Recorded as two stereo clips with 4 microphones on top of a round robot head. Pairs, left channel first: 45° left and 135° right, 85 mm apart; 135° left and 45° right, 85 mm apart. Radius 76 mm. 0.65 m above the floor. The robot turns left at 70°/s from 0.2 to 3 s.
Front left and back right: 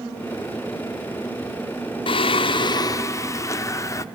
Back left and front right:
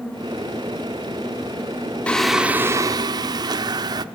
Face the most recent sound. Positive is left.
turn(degrees=-10)